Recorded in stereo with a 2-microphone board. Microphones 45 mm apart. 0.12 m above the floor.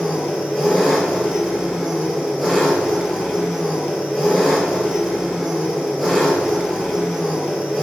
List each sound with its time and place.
0.0 s an engine running: 5° right (ahead or behind), 0.8 m